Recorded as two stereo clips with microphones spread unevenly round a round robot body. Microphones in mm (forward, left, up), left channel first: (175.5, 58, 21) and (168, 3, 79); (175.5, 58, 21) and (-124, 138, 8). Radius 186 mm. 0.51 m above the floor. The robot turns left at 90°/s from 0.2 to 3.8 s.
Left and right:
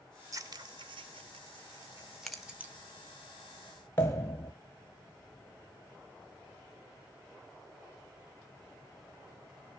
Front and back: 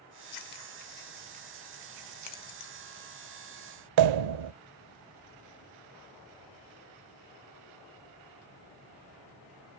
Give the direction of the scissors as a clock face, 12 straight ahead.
1 o'clock.